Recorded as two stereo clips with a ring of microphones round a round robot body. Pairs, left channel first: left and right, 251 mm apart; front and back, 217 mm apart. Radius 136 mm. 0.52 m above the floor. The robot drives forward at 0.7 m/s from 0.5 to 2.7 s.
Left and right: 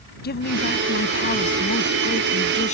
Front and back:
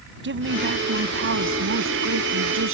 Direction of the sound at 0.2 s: 145° left.